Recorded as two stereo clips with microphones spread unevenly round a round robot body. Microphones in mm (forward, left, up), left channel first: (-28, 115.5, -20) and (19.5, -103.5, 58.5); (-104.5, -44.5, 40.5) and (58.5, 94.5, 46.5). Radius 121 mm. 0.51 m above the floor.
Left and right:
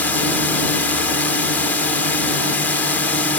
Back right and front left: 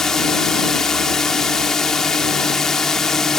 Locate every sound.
0.0 s a drone: 135° left